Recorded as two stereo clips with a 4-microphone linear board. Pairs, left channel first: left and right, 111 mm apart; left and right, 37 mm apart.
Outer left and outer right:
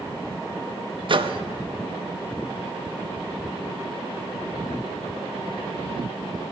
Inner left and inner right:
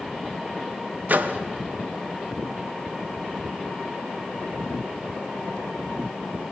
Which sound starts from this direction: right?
A microwave, at 1.1 s.